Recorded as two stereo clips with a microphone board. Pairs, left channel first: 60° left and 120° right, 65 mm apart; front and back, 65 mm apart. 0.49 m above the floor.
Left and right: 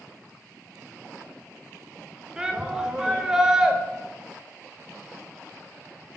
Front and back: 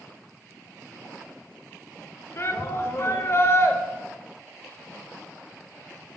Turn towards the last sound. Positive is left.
turn(degrees=-40)